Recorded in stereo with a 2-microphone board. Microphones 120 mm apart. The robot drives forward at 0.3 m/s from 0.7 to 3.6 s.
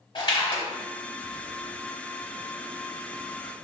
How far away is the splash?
About 0.9 m.